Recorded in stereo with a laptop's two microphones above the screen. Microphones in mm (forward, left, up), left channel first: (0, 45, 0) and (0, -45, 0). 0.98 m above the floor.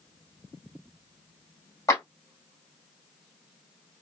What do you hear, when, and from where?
1.9 s a clap: 35° left (ahead or behind), 1.9 m